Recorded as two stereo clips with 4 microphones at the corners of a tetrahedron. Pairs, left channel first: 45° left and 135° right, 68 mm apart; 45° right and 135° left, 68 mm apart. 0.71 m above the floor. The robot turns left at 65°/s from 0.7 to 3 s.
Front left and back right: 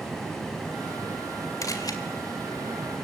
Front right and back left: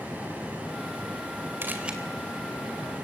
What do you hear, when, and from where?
1.6 s a camera shutter: 80° left, 2 m; by 2.0 s 55° left, 2 m